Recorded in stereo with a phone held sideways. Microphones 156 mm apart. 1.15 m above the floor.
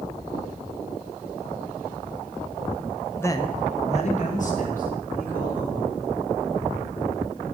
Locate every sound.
3.2 s a man speaking: 15° left (ahead or behind), 0.5 m; by 5.9 s 60° left (ahead or behind), 3 m